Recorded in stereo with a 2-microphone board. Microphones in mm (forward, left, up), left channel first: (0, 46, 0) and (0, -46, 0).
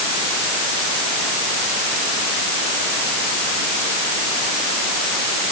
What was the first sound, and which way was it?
Only background noise.